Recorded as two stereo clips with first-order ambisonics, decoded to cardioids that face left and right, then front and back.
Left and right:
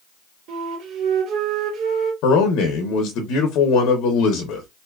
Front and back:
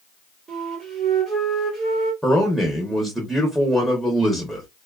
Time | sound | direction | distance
0.5 | a flute | 110° right | 1.3 m
2.2 | a man speaking | 90° left | 0.7 m